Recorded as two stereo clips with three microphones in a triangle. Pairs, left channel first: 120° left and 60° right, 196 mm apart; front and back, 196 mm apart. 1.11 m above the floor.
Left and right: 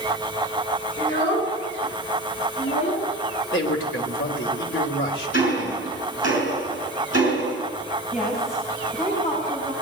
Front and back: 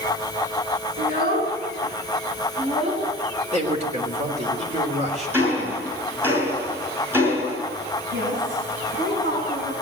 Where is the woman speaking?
170° left, 7.5 m.